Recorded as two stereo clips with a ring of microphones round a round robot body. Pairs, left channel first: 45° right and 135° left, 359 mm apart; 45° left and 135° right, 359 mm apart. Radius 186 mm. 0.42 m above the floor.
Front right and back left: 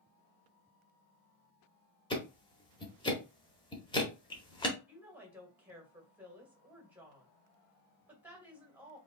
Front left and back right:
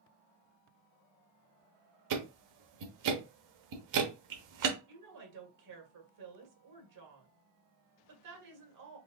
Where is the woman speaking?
140° right, 2 m.